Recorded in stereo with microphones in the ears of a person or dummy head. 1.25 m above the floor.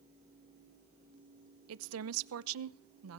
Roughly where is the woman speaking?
Right.